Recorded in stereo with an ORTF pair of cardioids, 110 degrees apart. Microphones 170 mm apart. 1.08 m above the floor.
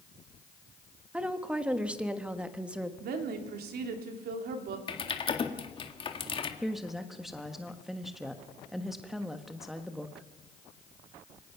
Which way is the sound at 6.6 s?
Straight ahead.